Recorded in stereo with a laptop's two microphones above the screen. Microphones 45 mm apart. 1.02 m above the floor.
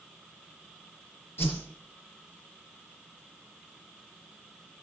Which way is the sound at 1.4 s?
60° left (ahead or behind).